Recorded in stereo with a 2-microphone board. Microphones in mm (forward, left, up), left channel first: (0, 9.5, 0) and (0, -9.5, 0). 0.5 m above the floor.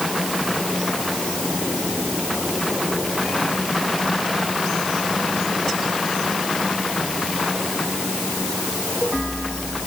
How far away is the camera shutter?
I don't hear a camera shutter.